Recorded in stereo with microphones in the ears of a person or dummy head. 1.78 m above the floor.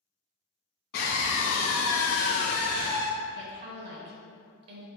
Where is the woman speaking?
40° right (ahead or behind), 0.9 m.